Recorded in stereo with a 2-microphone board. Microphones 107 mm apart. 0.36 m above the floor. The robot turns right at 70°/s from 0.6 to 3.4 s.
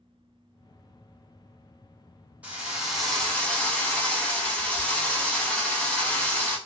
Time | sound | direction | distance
2.4 | a drill | 15° right (ahead or behind) | 0.9 m